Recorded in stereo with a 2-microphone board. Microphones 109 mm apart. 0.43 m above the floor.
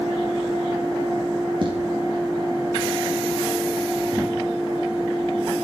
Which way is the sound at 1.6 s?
50° right (ahead or behind).